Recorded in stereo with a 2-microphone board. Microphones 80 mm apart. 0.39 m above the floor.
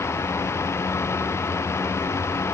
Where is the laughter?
No laughter in this recording.